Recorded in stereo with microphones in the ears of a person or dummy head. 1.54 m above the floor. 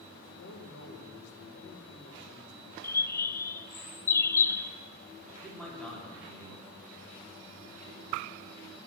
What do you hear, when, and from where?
0.2 s a man speaking: 75° left (ahead or behind), 2 m
2.8 s a bird: 15° left (ahead or behind), 0.5 m
5.4 s a man speaking: 10° left (ahead or behind), 4 m